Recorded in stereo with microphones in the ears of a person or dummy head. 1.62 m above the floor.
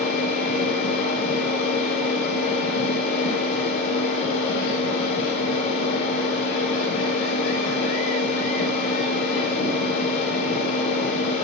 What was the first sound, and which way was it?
A machine running, 65° left (ahead or behind).